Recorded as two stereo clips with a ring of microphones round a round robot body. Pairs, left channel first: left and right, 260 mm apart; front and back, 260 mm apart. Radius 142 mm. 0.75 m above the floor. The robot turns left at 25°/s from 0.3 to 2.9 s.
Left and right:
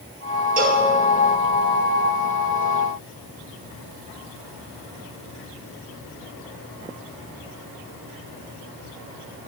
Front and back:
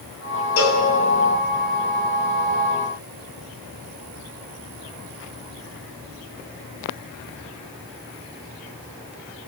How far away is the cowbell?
About 2 m.